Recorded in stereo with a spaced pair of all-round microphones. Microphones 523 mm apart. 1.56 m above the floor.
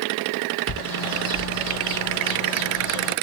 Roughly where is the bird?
Left.